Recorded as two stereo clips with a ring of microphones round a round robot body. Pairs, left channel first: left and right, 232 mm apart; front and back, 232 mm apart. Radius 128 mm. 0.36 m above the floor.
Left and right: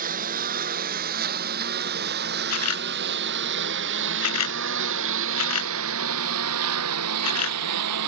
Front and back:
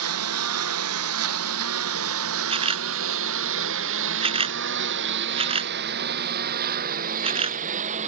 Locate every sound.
0.0 s a lawn mower: 150° right; by 8.1 s 115° right
2.5 s a camera shutter: 115° left